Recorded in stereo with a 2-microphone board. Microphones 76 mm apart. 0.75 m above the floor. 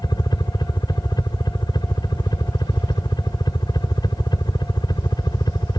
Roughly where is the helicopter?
Left.